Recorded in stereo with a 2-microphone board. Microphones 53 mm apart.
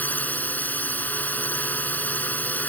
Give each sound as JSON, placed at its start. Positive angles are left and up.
{"t": 0.0, "sound": "a drone", "side_deg": 35}